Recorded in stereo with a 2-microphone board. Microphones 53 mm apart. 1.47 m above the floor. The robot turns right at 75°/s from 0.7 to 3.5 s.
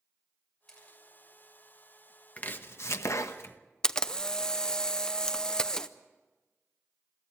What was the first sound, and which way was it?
A camera shutter, 10° left (ahead or behind).